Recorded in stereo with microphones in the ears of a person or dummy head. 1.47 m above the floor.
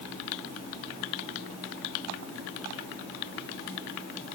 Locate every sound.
Only background noise.